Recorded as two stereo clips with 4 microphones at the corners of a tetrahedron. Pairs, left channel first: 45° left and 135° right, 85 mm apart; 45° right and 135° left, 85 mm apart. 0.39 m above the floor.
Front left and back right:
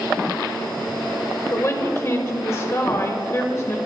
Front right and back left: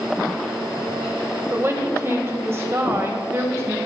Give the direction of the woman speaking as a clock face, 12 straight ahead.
9 o'clock.